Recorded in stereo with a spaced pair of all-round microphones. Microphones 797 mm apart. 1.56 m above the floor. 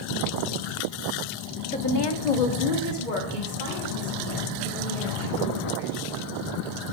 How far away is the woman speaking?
About 0.8 m.